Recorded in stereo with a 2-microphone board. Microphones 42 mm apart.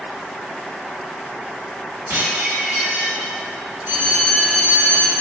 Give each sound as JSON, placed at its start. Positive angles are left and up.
{"t": 2.1, "sound": "dishes clattering", "side_deg": -70, "distance_m": 1.1}
{"t": 3.9, "sound": "a bell", "side_deg": -65, "distance_m": 0.8}